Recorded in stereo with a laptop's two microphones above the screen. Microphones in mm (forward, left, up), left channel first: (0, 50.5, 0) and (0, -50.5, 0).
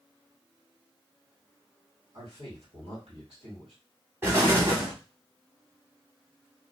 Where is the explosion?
25° right (ahead or behind), 1.2 m.